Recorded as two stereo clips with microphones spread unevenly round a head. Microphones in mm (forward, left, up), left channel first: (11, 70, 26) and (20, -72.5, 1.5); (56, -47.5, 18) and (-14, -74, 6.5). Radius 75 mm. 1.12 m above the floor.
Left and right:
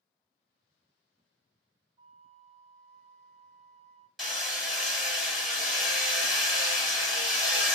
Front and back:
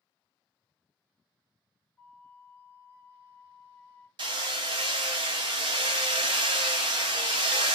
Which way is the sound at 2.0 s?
35° right.